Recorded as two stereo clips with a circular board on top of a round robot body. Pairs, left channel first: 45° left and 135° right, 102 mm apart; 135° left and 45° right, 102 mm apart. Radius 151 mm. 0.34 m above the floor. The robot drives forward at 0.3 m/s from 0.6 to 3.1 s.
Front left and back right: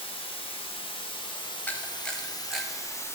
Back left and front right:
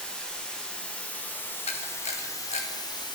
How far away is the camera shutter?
About 0.5 m.